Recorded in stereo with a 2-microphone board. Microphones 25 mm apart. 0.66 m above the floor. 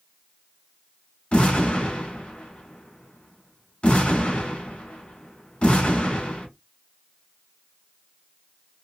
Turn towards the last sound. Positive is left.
turn(degrees=50)  # may be behind; listen again after turning